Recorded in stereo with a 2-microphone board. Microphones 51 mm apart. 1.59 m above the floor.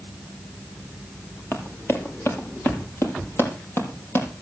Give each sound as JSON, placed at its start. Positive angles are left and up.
{"t": 1.5, "sound": "running footsteps", "side_deg": 50, "distance_m": 2.5}